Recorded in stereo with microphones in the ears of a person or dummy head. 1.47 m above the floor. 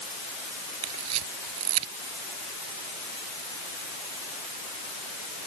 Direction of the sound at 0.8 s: 85° right.